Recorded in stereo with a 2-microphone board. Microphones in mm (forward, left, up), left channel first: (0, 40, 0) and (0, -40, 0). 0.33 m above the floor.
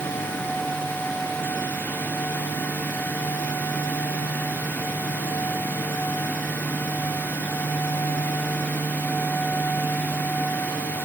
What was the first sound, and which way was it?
Only background noise.